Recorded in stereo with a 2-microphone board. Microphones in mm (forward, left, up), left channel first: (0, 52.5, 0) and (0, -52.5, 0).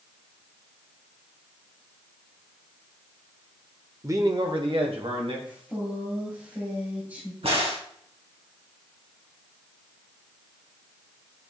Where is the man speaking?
25° right (ahead or behind), 0.8 m; by 5.4 s 70° right (ahead or behind), 2 m.